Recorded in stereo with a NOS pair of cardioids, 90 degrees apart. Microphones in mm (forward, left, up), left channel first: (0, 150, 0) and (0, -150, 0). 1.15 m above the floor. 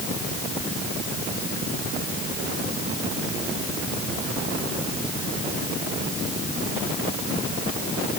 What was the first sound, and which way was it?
Only background noise.